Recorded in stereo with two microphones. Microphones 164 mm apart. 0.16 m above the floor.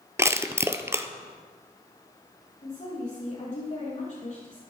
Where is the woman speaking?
50° left (ahead or behind), 4.5 m.